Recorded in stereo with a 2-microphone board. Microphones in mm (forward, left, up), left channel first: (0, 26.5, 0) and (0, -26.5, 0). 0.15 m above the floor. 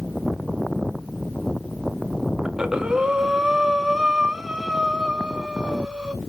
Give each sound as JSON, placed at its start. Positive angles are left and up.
{"t": 2.5, "sound": "breathing", "side_deg": -15, "distance_m": 0.5}